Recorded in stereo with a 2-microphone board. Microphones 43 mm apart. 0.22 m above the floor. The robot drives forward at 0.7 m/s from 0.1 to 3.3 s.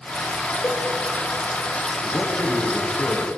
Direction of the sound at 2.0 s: 75° left (ahead or behind).